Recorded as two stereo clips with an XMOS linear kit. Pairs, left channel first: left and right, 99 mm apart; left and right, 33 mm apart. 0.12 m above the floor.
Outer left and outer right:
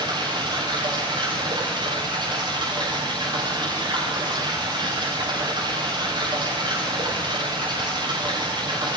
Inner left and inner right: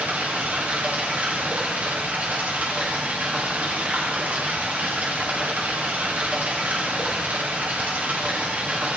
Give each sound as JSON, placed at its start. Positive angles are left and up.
{"t": 0.0, "sound": "running water", "side_deg": -50, "distance_m": 8.5}